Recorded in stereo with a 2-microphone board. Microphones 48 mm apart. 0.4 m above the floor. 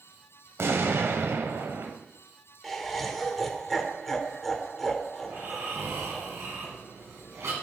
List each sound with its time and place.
0.6 s an explosion: 60° right (ahead or behind), 0.8 m
2.6 s laughter: 5° left (ahead or behind), 1.2 m
5.2 s snoring: 75° right (ahead or behind), 2.5 m